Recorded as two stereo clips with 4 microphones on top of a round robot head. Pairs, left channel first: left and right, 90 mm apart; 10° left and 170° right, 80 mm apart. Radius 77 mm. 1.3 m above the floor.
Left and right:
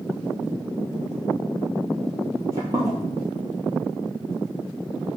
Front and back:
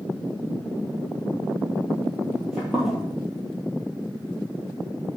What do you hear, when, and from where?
2.3 s footsteps: 90° right, 1.4 m